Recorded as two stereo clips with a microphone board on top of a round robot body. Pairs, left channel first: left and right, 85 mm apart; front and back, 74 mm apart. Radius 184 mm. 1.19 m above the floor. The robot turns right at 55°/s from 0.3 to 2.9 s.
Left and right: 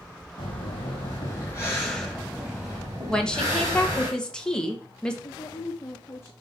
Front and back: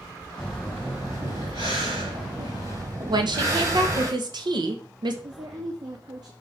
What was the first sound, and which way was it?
Breathing, 75° left.